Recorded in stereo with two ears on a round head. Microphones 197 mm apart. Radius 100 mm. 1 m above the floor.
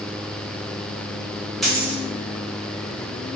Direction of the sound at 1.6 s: Centre (ahead or behind).